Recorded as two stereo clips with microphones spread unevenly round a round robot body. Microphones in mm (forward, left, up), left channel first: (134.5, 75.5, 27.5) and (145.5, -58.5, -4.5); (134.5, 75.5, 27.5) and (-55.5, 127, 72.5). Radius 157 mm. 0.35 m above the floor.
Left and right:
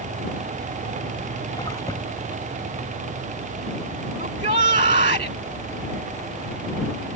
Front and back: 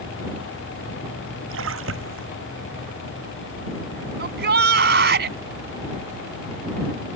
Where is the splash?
175° left.